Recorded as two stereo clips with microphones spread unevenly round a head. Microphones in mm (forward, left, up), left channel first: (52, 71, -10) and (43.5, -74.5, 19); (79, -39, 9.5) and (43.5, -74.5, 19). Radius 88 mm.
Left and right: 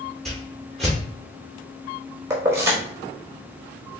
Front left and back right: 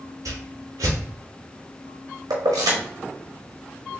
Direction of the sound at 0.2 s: 175° left.